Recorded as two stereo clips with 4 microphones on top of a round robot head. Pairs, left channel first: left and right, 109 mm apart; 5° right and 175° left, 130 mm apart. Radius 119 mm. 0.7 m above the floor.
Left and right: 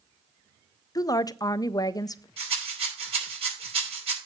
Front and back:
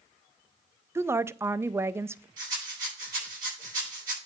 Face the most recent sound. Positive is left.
turn(degrees=-120)